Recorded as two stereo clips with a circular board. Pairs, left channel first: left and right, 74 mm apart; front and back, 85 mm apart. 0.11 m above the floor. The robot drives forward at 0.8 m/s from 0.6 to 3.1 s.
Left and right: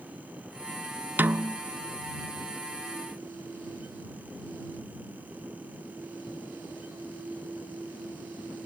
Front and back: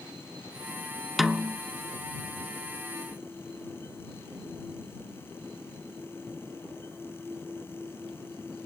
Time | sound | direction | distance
1.2 | a snare drum | 95° right | 0.6 m